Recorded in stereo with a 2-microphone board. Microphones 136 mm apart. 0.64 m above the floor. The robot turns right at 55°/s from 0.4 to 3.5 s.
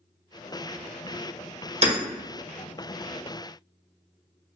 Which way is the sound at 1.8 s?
50° right (ahead or behind).